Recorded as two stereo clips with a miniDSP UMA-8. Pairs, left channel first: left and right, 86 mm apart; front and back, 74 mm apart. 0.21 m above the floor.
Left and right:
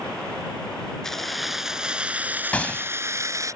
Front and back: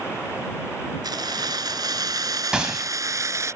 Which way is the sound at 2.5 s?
125° left.